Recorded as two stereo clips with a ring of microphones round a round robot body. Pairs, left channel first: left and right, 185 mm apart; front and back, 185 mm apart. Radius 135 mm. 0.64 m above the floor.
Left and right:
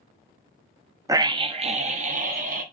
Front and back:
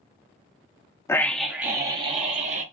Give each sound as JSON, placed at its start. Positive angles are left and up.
{"t": 1.1, "sound": "a scream", "azimuth_deg": -50, "distance_m": 0.6}